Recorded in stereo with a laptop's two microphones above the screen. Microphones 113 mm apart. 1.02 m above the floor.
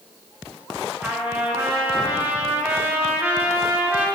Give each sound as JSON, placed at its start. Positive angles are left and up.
{"t": 1.0, "sound": "a trumpet", "side_deg": -15, "distance_m": 1.2}